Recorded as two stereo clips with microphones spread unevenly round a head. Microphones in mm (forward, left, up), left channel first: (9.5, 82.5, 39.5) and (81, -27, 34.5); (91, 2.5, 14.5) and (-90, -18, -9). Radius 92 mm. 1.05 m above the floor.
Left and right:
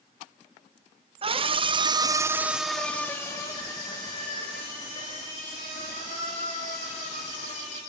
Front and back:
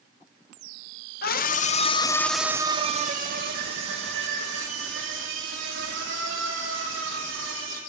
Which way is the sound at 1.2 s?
25° right.